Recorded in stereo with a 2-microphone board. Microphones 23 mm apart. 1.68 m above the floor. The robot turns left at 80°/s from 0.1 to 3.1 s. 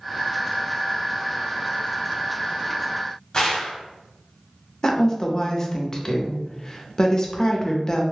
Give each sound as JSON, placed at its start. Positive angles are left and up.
{"t": 3.3, "sound": "a gunshot", "side_deg": 35, "distance_m": 0.9}
{"t": 4.8, "sound": "a woman speaking", "side_deg": 25, "distance_m": 0.6}